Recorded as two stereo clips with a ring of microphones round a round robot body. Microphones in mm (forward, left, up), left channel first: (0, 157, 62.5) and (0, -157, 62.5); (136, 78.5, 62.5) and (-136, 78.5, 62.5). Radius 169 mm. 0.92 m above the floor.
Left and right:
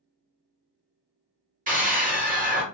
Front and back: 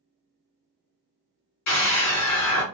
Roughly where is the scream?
Ahead right.